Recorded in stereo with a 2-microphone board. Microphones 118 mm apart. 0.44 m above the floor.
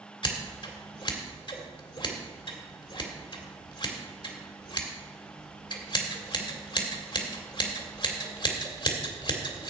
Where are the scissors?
45° left (ahead or behind), 2 m.